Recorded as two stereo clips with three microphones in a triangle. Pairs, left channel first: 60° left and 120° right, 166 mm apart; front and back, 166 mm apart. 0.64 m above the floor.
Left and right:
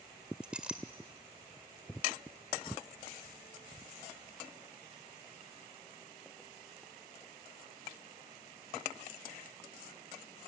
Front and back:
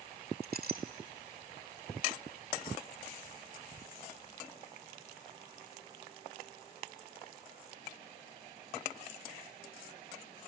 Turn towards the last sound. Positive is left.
turn(degrees=155)